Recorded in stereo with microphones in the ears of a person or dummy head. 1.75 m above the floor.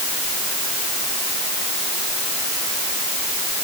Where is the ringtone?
No ringtone in this recording.